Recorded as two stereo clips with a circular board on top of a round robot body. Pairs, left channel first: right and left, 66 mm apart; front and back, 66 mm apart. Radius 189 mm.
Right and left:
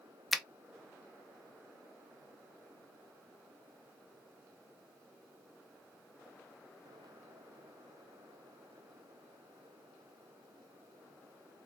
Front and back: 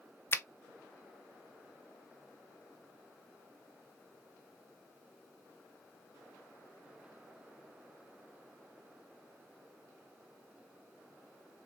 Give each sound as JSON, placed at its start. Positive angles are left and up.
{"t": 0.3, "sound": "a finger snap", "azimuth_deg": 0, "distance_m": 0.6}